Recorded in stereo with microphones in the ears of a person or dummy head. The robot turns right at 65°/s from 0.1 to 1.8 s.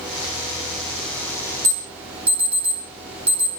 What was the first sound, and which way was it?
An alarm, 15° right (ahead or behind).